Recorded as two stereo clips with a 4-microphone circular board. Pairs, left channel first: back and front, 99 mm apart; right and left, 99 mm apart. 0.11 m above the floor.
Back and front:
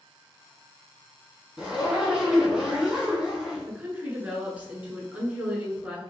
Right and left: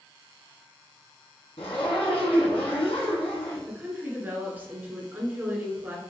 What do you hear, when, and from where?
1.6 s a zipper: 85° right, 1.9 m
3.7 s a woman speaking: 50° left, 1.4 m